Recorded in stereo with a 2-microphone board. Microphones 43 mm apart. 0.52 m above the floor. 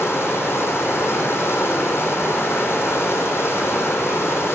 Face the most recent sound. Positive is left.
turn(degrees=80)